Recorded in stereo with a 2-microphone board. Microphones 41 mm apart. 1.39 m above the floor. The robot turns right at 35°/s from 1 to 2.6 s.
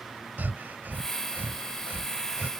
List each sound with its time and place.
0.4 s breathing: 55° right (ahead or behind); by 2.5 s 50° right (ahead or behind)